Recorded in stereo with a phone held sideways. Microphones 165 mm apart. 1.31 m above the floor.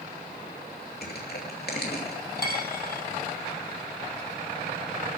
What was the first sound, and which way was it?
Crushing, 75° left (ahead or behind).